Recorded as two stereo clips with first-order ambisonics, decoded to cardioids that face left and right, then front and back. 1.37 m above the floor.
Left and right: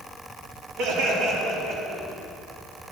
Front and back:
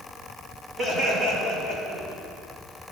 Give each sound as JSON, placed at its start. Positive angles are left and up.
{"t": 0.8, "sound": "laughter", "azimuth_deg": -110, "distance_m": 2.5}